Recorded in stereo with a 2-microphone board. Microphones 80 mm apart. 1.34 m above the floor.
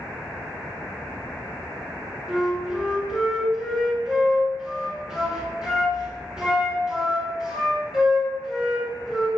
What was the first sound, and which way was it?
A flute, 5° right (ahead or behind).